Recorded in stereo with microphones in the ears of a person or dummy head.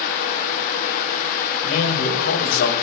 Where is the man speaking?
60° left (ahead or behind), 4.5 m.